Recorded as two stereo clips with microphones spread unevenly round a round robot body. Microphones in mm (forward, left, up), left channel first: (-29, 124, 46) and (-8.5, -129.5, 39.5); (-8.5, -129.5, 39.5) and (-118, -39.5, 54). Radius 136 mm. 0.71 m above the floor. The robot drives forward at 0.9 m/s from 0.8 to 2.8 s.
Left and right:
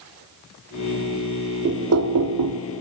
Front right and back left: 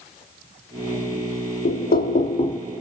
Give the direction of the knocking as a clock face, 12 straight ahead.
1 o'clock.